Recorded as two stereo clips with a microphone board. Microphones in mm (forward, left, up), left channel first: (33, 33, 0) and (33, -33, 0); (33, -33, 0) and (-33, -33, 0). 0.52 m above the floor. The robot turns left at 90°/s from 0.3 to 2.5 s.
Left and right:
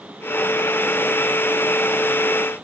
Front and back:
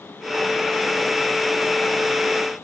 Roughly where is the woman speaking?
I don't hear a woman speaking.